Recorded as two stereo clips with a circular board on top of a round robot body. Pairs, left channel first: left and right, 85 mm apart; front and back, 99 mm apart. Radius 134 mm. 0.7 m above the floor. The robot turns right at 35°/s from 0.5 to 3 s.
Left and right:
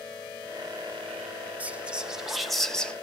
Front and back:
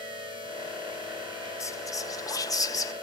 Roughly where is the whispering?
Ahead right.